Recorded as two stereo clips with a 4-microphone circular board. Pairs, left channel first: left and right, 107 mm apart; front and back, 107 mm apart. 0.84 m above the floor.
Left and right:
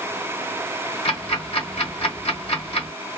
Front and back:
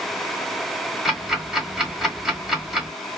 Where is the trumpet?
No trumpet in this recording.